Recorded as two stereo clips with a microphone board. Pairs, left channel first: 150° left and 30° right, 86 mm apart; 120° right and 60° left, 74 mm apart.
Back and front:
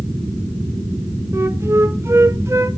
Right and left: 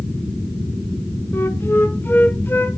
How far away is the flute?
About 0.6 m.